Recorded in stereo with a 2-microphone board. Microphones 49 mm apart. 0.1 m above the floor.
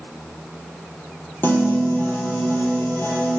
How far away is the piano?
About 3.5 m.